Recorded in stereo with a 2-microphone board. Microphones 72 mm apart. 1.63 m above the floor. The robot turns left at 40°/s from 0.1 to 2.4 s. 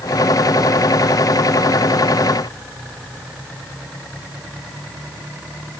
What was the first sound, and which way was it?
Only background noise.